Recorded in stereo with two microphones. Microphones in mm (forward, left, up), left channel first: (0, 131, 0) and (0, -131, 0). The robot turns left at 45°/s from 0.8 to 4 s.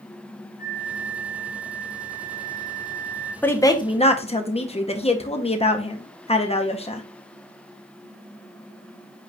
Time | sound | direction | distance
0.6 | a flute | 20° right | 1.1 m
3.4 | a woman speaking | 5° left (ahead or behind) | 0.6 m